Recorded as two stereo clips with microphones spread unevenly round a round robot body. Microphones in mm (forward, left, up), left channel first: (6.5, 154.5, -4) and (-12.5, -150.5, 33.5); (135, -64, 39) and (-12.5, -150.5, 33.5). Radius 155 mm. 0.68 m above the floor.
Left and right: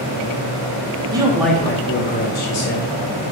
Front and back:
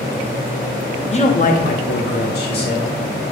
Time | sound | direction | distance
1.1 | a man speaking | 15° right | 0.9 m